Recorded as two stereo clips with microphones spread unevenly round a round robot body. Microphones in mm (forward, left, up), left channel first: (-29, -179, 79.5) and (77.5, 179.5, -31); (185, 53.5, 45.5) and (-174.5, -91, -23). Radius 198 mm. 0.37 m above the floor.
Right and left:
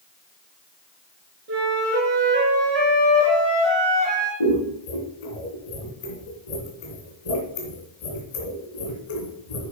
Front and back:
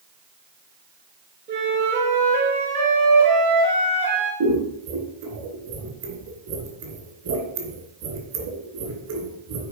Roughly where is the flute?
Behind left.